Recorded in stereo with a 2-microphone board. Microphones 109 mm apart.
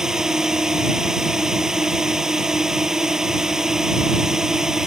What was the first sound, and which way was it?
A drone, 5° right (ahead or behind).